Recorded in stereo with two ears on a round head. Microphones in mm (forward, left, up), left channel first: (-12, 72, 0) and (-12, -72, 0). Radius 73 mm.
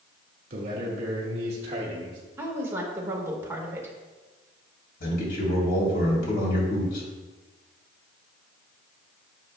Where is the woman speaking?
15° right (ahead or behind), 1.6 m.